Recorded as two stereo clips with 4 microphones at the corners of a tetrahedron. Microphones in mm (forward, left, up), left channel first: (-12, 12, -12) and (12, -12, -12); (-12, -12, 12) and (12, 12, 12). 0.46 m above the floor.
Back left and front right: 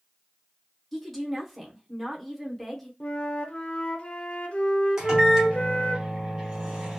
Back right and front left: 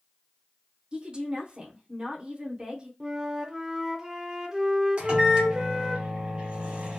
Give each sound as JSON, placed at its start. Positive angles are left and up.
{"t": 0.9, "sound": "a woman speaking", "azimuth_deg": 50, "distance_m": 0.8}
{"t": 3.0, "sound": "a flute", "azimuth_deg": 115, "distance_m": 0.5}
{"t": 5.0, "sound": "a microwave", "azimuth_deg": 10, "distance_m": 1.0}